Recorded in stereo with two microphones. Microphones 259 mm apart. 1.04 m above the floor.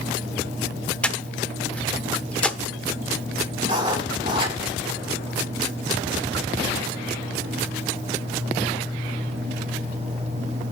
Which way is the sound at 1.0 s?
5° left (ahead or behind).